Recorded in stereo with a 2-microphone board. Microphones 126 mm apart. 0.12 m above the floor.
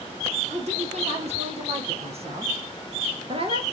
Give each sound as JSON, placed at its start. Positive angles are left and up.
{"t": 0.5, "sound": "a woman speaking", "side_deg": -60, "distance_m": 3.5}